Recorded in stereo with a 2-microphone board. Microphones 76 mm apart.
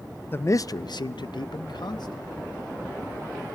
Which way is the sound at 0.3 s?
30° left (ahead or behind).